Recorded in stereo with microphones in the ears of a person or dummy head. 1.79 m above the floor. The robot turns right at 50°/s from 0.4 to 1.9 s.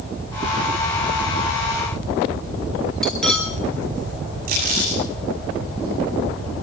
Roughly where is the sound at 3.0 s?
Centre.